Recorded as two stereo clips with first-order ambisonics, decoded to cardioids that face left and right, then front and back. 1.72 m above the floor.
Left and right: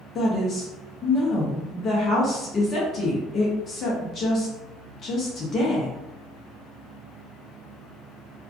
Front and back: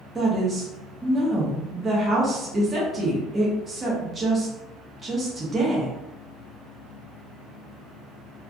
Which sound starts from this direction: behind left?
A woman speaking, at 0.1 s.